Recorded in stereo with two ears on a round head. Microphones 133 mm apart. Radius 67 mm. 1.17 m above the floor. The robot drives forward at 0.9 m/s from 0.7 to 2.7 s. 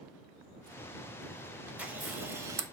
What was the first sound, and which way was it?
A camera shutter, 10° right (ahead or behind).